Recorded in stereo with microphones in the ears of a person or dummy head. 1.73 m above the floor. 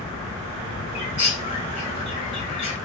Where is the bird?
30° left (ahead or behind), 0.9 m.